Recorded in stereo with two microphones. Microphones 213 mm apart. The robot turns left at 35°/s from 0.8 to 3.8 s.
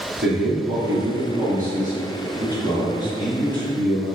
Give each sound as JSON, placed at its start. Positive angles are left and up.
{"t": 0.2, "sound": "a man speaking", "azimuth_deg": -95, "distance_m": 1.8}